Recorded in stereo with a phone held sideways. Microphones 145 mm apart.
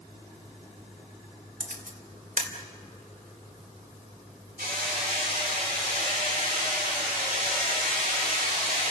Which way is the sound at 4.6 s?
85° right.